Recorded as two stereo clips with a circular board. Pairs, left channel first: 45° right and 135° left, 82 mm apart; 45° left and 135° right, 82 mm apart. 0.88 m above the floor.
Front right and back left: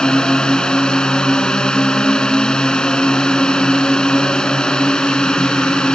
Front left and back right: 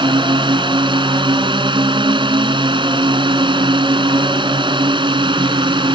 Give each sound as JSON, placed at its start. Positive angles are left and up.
{"t": 0.0, "sound": "a drone", "azimuth_deg": -125}